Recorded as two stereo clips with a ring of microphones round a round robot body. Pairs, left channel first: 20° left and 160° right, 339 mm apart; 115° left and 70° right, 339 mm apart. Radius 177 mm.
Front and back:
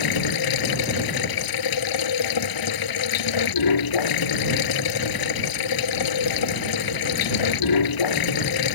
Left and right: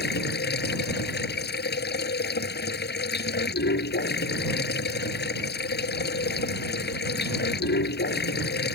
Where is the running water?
50° left.